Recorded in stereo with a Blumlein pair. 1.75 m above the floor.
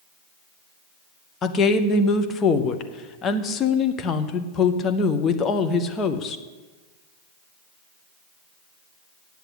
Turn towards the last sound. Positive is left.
turn(degrees=25)